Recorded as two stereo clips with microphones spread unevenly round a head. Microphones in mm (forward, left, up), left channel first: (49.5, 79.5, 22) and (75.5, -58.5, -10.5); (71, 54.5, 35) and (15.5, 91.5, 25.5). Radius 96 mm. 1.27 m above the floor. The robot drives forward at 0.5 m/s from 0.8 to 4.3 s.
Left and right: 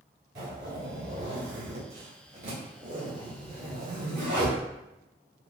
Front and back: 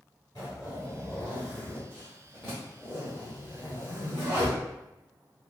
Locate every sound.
0.3 s a zipper: 95° right, 1.8 m; by 4.5 s 140° right, 2.5 m